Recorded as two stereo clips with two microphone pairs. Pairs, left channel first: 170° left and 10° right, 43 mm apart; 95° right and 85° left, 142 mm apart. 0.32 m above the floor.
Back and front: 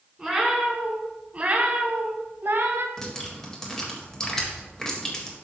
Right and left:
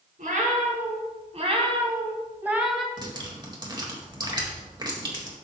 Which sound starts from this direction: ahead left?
A cat meowing, at 0.2 s.